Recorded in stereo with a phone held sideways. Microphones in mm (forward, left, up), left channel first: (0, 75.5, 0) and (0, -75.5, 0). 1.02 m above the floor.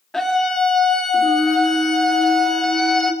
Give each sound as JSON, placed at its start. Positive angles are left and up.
{"t": 0.1, "sound": "a scream", "side_deg": 5, "distance_m": 2.5}